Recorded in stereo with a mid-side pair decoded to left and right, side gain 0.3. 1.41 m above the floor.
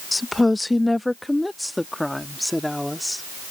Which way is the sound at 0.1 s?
30° left.